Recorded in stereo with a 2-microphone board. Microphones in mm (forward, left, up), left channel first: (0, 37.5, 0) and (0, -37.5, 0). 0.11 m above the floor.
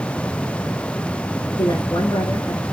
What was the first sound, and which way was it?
A woman speaking, 60° left (ahead or behind).